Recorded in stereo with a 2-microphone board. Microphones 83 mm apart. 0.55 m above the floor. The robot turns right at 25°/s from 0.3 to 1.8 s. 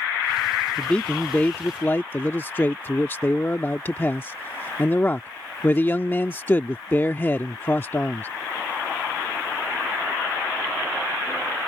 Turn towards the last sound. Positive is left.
turn(degrees=25)  # may be behind; listen again after turning